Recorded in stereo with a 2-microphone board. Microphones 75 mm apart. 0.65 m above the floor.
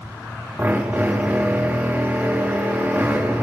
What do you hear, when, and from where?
0.6 s a drill: 25° right (ahead or behind), 1.1 m